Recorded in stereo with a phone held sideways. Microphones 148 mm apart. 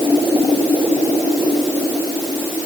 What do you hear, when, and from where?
Only background noise.